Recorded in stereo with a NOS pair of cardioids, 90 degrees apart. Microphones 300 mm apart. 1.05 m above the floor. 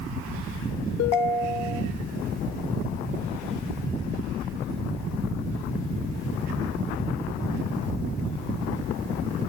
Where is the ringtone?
60° left, 0.9 m.